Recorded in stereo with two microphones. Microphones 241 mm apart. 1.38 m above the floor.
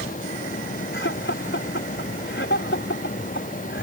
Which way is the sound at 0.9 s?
50° left (ahead or behind).